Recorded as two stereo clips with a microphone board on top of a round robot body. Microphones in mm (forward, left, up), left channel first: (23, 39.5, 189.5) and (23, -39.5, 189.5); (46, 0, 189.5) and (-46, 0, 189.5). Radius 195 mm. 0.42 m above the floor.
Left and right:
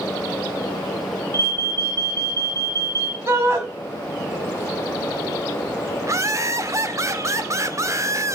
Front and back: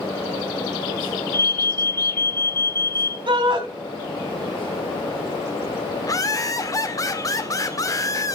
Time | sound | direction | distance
1.3 | an alarm | 55° right | 2.5 m
3.3 | a shout | 150° right | 4 m
6.0 | laughter | 45° right | 2 m